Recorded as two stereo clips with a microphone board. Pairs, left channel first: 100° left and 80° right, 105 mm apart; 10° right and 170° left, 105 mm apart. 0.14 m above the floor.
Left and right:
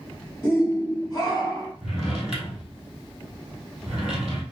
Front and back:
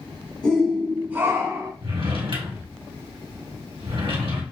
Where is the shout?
60° left, 1.2 m; by 1.7 s 135° left, 1.7 m.